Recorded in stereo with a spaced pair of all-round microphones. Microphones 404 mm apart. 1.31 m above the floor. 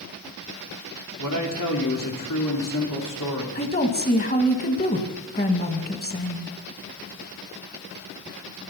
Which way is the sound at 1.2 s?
50° left (ahead or behind).